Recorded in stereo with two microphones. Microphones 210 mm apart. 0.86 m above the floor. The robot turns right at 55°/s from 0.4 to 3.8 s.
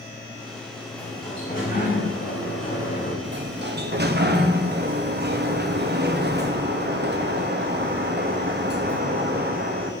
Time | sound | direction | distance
0.9 | a sliding door | 5° left | 4.5 m
3.2 | a sliding door | 95° right | 1.1 m